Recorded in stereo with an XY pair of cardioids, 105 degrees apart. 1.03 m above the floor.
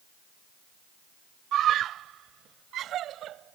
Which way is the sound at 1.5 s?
70° right.